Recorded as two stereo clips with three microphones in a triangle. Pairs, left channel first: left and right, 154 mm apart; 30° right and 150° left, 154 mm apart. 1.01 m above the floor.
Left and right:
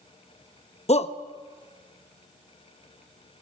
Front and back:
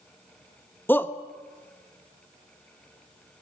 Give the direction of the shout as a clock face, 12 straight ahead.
10 o'clock.